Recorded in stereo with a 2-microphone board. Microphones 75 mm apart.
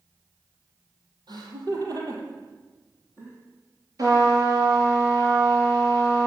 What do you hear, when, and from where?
1.3 s laughter: 70° right (ahead or behind), 4.5 m; by 3.4 s 30° right (ahead or behind), 5 m
4.0 s a trumpet: 50° right (ahead or behind), 7 m